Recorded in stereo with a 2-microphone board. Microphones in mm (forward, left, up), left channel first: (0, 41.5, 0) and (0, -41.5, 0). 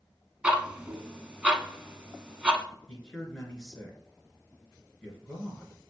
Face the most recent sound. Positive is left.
turn(degrees=5)  # may be behind; listen again after turning